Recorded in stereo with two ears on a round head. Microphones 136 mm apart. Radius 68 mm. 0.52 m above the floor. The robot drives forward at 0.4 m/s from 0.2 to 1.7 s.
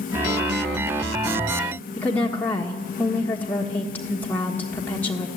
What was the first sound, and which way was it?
A woman speaking, 15° left (ahead or behind).